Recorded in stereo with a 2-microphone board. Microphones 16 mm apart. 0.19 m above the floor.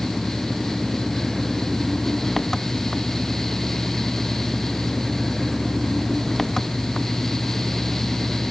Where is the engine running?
20° left (ahead or behind).